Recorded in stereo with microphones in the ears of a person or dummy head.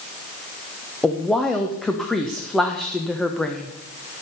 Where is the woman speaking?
Centre (ahead or behind), 1.1 m.